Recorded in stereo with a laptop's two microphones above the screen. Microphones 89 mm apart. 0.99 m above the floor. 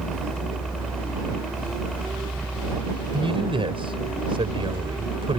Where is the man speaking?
75° right (ahead or behind).